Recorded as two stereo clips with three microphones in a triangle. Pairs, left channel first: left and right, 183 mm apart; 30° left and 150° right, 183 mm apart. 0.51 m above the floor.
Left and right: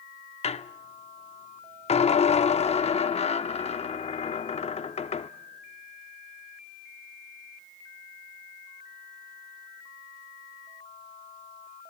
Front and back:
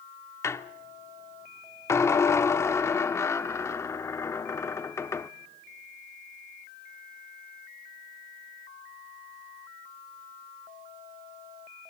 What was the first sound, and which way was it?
A squeak, 90° left.